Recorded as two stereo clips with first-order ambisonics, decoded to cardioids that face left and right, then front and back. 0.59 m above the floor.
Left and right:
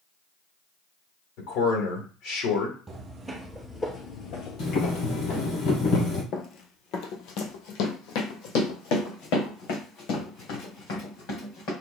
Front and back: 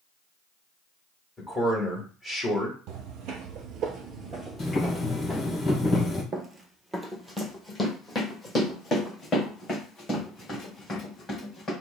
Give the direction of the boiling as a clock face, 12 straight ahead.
10 o'clock.